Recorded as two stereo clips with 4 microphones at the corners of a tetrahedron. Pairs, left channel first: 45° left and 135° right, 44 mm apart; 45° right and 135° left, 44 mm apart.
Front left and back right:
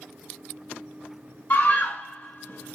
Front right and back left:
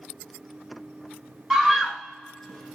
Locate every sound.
1.5 s a scream: 50° left, 1.7 m; by 2.8 s 35° left, 2 m